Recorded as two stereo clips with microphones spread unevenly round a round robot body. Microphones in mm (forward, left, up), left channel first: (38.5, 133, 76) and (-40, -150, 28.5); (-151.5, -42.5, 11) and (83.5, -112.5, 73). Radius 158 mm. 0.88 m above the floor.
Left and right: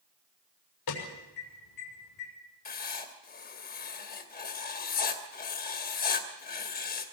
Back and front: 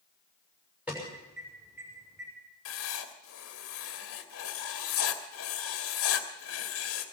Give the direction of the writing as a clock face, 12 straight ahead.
7 o'clock.